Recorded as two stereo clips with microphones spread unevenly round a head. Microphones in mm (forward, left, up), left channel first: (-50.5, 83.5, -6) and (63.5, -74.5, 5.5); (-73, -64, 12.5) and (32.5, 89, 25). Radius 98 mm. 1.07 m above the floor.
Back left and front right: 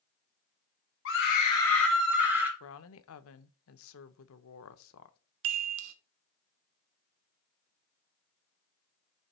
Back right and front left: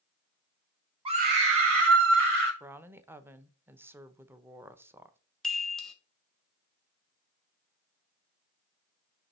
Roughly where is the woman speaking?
Behind left.